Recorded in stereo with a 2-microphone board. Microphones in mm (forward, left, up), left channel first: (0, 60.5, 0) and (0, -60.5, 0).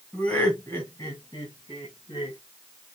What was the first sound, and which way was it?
Laughter, 10° left (ahead or behind).